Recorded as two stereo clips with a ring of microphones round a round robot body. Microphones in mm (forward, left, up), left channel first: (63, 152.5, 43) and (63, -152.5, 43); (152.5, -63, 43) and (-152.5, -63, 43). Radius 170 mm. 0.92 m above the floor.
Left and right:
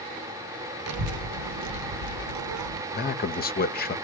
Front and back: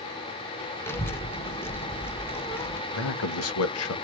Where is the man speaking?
35° left, 0.9 m.